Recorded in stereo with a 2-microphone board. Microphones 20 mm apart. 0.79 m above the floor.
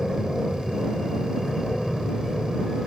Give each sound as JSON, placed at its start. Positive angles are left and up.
{"t": 0.0, "sound": "an aircraft", "side_deg": 0}